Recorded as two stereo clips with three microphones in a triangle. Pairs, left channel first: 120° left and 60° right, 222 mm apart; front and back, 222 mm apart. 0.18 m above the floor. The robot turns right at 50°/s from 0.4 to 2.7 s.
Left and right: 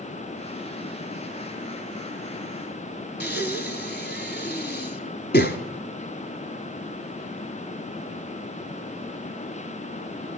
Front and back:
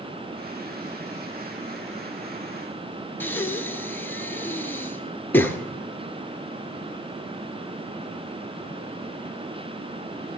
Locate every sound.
3.2 s breathing: 80° left, 1.0 m